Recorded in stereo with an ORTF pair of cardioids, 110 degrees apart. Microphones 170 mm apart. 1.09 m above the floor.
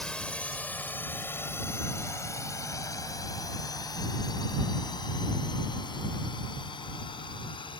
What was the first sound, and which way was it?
A drone, 5° left.